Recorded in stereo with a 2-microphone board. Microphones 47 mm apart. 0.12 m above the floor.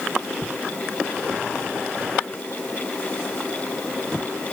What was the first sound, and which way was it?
Only background noise.